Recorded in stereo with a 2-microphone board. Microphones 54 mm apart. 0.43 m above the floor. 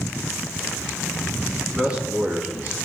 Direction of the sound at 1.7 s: 20° right (ahead or behind).